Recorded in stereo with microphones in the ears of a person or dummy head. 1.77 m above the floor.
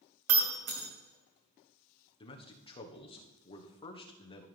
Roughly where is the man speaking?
Left.